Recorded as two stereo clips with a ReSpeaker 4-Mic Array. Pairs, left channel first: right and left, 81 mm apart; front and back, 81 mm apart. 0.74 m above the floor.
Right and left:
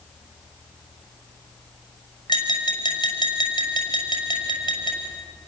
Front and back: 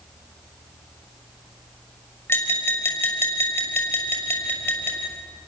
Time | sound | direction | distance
2.3 | tapping | 60° right | 6 m